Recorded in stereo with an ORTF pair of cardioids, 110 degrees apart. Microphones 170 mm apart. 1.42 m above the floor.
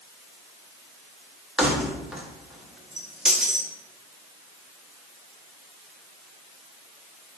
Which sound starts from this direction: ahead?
Keys jangling, at 1.6 s.